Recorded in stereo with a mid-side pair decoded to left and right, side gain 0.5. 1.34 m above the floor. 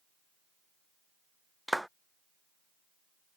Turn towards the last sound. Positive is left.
turn(degrees=-5)